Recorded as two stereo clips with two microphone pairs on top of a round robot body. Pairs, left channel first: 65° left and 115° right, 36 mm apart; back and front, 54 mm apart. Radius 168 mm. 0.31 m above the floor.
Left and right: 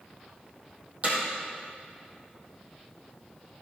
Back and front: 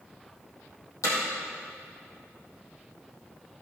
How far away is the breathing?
I don't hear breathing.